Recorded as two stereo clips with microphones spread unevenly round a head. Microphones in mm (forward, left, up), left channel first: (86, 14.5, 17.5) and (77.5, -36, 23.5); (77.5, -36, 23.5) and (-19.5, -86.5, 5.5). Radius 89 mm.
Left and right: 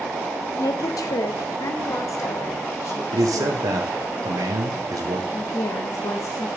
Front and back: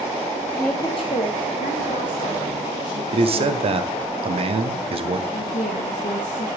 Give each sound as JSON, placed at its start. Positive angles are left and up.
{"t": 0.6, "sound": "a woman speaking", "azimuth_deg": 115, "distance_m": 0.5}
{"t": 3.1, "sound": "a man speaking", "azimuth_deg": -120, "distance_m": 0.9}
{"t": 5.3, "sound": "a woman speaking", "azimuth_deg": 75, "distance_m": 0.6}